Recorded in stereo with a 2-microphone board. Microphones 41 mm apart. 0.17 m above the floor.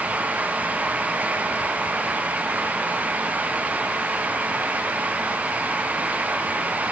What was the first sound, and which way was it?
Only background noise.